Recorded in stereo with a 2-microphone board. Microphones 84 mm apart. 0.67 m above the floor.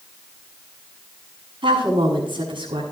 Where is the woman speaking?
80° right, 7 m.